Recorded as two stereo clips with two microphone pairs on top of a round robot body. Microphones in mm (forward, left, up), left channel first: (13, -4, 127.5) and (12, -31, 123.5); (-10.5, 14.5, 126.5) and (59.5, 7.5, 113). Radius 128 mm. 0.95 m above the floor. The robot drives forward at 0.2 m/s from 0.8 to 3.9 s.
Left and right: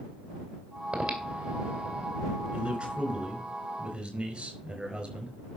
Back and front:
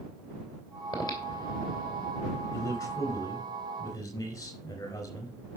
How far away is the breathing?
About 3 m.